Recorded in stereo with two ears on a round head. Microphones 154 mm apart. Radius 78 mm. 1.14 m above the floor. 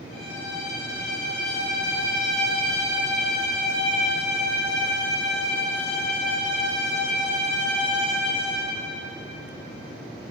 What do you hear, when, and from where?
0.1 s a violin: 60° left (ahead or behind), 5 m